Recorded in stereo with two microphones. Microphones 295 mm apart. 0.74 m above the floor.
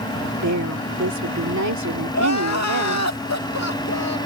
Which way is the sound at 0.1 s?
75° right (ahead or behind).